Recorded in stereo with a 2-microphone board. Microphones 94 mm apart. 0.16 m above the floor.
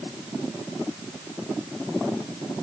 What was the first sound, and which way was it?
Only background noise.